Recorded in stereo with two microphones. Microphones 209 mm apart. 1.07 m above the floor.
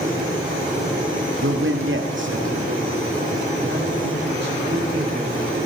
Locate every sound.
1.4 s a man speaking: 75° right (ahead or behind), 1.5 m; by 5.5 s 55° right (ahead or behind), 8 m